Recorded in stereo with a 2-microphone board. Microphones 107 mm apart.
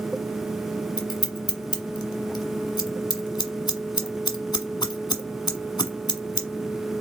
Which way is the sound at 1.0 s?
45° left (ahead or behind).